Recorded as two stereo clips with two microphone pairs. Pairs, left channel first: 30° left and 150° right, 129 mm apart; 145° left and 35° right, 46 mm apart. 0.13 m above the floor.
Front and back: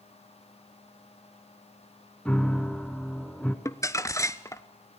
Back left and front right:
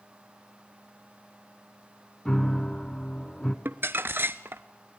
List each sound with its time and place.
2.2 s a piano: 95° left, 1.4 m
3.6 s crumpling: 30° right, 0.8 m